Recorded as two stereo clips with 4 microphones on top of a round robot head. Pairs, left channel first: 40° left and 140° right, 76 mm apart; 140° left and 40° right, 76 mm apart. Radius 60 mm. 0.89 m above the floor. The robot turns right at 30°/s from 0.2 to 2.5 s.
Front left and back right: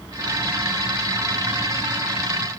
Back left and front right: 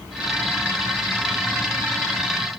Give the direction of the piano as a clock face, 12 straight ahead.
I don't hear a piano.